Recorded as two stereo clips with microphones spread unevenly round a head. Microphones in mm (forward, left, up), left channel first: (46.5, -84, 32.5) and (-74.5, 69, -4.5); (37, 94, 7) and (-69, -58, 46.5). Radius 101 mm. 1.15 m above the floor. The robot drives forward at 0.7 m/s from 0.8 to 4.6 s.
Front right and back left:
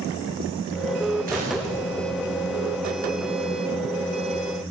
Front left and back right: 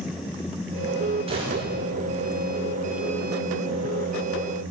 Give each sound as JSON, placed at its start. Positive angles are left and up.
{"t": 1.3, "sound": "a gunshot", "azimuth_deg": 175, "distance_m": 10.0}